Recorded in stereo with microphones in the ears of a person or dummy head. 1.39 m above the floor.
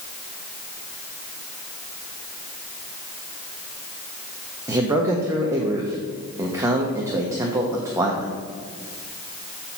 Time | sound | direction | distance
4.7 | a man speaking | 15° right (ahead or behind) | 1.0 m